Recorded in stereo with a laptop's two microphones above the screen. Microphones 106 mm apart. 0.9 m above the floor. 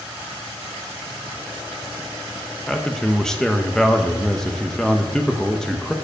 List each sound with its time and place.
2.7 s a man speaking: 5° left (ahead or behind), 0.5 m